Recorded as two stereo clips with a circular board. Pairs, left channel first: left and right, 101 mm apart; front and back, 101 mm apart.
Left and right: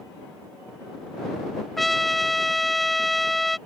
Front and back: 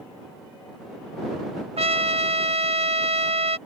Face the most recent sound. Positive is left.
turn(degrees=180)